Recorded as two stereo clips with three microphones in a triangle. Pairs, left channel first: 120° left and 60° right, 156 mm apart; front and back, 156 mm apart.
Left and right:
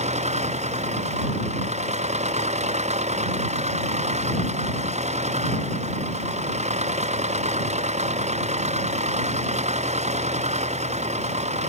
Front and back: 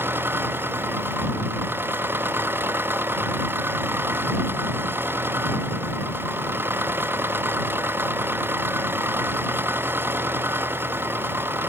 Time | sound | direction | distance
0.0 | an engine running | 105° right | ?